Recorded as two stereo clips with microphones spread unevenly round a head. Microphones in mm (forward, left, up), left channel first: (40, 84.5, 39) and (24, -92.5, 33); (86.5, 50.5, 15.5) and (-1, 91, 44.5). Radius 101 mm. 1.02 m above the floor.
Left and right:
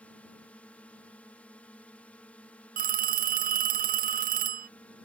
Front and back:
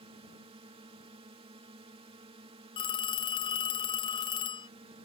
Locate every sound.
0.0 s a drone: 165° left
2.8 s a phone ringing: 55° right